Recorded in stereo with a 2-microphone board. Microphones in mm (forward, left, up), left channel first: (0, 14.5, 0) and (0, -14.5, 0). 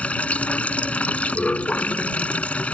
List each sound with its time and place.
0.0 s running water: 50° left (ahead or behind)